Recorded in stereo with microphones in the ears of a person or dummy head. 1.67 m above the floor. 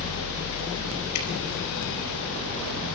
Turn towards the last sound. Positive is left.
turn(degrees=75)  # may be behind; listen again after turning